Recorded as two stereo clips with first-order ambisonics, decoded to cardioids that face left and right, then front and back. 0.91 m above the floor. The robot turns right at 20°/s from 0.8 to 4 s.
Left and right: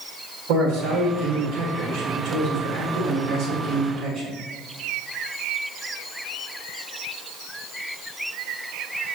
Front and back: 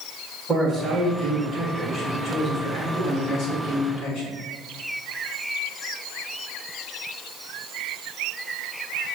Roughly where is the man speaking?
Right.